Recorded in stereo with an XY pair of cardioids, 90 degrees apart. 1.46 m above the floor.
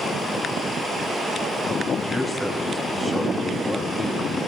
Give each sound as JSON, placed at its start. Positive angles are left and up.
{"t": 2.0, "sound": "a man speaking", "azimuth_deg": -10, "distance_m": 2.5}